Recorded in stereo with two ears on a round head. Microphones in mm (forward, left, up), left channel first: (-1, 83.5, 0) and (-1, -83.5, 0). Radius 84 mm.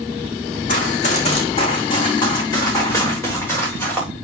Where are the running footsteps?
50° left (ahead or behind), 3.5 m; by 4.1 s 10° left (ahead or behind), 7.5 m.